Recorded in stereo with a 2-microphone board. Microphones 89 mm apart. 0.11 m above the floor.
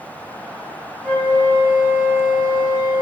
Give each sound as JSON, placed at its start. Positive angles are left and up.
{"t": 1.0, "sound": "a flute", "side_deg": 25, "distance_m": 1.8}